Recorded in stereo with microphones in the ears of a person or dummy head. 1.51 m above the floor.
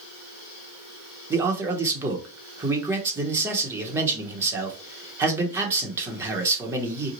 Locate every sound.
1.3 s a man speaking: 15° right (ahead or behind), 1.0 m